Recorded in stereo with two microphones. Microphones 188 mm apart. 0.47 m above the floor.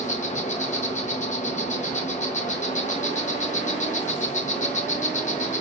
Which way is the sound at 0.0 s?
40° left (ahead or behind).